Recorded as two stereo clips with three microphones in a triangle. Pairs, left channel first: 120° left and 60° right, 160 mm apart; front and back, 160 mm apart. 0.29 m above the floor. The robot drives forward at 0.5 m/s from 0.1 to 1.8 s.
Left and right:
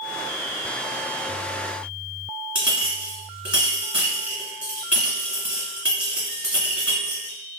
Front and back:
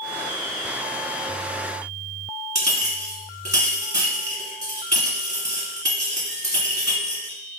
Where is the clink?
140° right, 1.4 m.